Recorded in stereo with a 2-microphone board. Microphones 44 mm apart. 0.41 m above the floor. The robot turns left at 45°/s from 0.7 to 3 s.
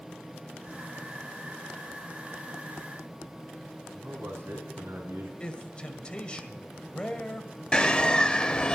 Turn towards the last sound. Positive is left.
turn(degrees=20)  # may be behind; listen again after turning